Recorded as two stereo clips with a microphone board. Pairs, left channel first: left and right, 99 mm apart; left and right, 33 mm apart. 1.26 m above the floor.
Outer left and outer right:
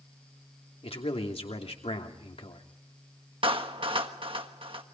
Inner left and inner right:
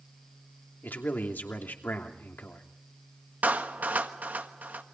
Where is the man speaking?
80° left, 3 m.